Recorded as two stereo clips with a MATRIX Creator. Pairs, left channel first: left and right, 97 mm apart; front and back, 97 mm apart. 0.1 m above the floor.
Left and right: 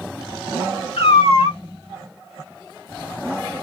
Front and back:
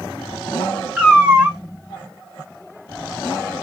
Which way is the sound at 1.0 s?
100° left.